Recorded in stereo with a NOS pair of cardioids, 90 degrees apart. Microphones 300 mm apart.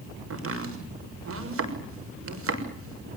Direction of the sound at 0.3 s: 50° right.